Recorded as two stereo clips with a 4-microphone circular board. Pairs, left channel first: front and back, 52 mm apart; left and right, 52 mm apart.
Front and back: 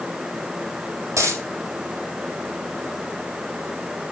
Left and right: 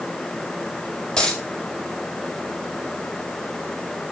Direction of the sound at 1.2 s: 160° left.